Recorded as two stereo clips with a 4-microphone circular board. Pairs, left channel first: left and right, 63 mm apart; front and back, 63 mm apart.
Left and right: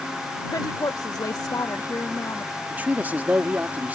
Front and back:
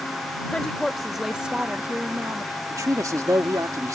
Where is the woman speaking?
75° left; by 2.6 s 140° left.